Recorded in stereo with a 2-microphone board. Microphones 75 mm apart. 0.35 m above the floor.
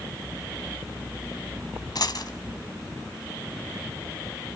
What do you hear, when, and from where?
1.9 s a dropped coin: 65° left (ahead or behind), 1.4 m